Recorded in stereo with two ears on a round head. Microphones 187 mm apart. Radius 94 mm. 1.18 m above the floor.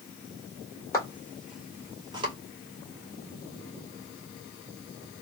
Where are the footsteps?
15° left (ahead or behind), 1.5 m; by 2.3 s 25° right (ahead or behind), 1.3 m.